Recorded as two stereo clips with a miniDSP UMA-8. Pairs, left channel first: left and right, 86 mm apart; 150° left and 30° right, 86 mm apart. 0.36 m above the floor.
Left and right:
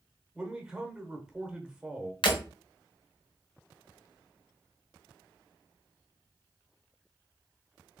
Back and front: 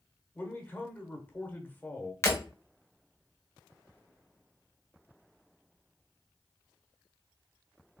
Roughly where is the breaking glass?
Left.